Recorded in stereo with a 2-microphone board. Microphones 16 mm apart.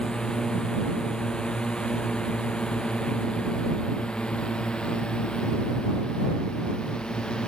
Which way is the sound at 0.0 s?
55° left (ahead or behind).